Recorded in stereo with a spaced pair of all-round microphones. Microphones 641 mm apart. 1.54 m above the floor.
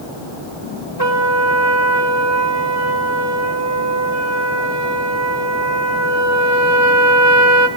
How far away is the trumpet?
About 1.8 m.